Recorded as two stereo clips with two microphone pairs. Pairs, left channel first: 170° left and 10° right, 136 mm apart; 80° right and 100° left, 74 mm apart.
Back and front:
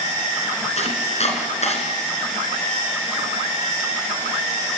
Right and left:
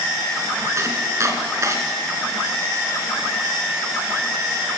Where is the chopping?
145° left, 2.5 m.